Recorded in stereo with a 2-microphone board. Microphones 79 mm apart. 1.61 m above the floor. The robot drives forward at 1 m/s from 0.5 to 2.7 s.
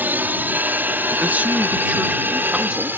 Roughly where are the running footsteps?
I don't hear running footsteps.